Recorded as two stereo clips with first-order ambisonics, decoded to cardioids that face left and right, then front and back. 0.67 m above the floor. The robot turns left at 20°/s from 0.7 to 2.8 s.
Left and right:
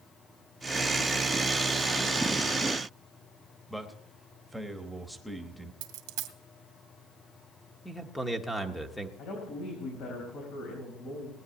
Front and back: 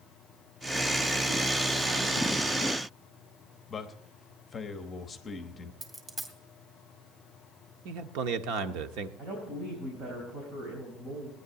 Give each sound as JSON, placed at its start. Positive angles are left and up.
{"t": 3.7, "sound": "a man speaking", "azimuth_deg": -5, "distance_m": 1.0}
{"t": 5.8, "sound": "a dropped coin", "azimuth_deg": -110, "distance_m": 1.9}
{"t": 7.8, "sound": "a man speaking", "azimuth_deg": 175, "distance_m": 1.2}
{"t": 9.2, "sound": "a woman speaking", "azimuth_deg": 125, "distance_m": 4.0}